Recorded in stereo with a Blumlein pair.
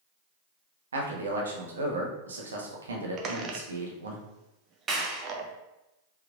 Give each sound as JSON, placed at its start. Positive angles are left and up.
{"t": 0.9, "sound": "a man speaking", "azimuth_deg": -70, "distance_m": 1.0}
{"t": 3.2, "sound": "a squeak", "azimuth_deg": -30, "distance_m": 0.7}
{"t": 4.9, "sound": "a clap", "azimuth_deg": -20, "distance_m": 0.9}